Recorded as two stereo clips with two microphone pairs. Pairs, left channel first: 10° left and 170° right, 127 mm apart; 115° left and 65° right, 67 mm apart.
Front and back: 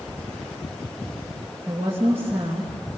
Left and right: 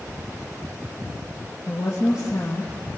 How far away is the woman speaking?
About 3 m.